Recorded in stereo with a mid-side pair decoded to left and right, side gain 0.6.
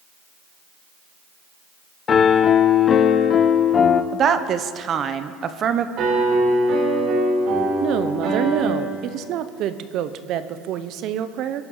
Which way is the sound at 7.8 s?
60° right.